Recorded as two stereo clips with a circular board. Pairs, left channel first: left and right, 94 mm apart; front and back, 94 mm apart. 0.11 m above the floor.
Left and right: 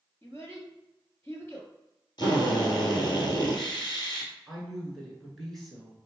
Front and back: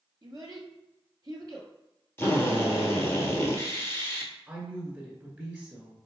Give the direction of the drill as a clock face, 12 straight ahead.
10 o'clock.